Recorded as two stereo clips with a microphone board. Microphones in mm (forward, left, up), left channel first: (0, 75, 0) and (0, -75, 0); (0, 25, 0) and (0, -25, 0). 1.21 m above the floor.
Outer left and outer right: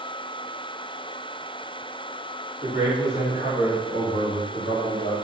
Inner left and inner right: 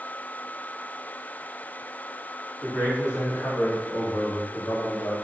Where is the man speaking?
50° left (ahead or behind), 3 m; by 5.2 s 85° left, 2.5 m.